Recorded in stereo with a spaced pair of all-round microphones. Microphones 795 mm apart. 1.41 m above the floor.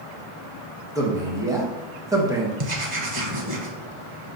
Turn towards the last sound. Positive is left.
turn(degrees=-40)  # may be behind; listen again after turning